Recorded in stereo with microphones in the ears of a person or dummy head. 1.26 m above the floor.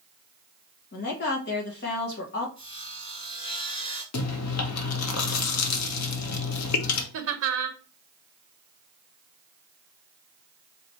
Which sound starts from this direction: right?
Laughter, at 7.1 s.